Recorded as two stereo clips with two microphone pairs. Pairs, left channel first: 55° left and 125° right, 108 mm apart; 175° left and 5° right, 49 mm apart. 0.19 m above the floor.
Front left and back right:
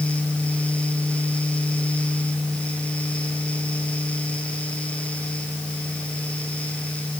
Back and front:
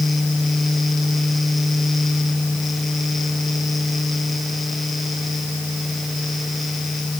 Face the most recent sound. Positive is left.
No sound to turn to.